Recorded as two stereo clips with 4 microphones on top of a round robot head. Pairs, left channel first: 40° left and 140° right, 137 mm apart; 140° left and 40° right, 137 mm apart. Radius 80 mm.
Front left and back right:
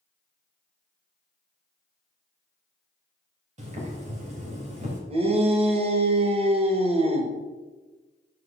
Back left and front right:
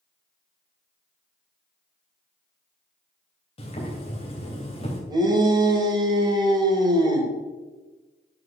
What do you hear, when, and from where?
3.6 s boiling: 175° right, 3 m
5.1 s a shout: 100° right, 2 m